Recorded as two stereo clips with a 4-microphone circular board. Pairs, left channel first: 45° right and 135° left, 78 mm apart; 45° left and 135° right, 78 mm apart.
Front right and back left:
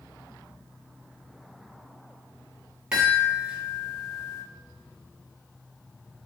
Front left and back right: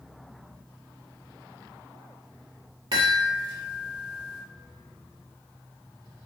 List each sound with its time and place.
2.9 s a chime: 145° right, 1.2 m